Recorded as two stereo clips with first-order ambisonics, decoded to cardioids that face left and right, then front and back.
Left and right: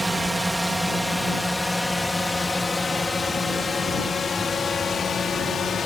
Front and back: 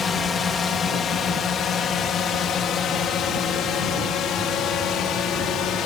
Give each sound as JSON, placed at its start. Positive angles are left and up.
{"t": 0.0, "sound": "a drone", "azimuth_deg": -15}